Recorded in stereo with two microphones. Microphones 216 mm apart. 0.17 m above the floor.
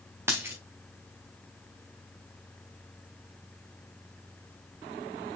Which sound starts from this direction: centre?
A dropped coin, at 0.3 s.